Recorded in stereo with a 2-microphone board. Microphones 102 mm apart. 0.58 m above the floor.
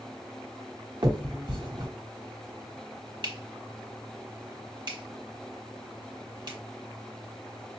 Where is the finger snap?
50° right (ahead or behind), 1.2 m.